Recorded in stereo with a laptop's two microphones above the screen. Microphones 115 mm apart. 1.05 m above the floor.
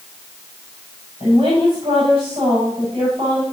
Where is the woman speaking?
65° right (ahead or behind), 6 m.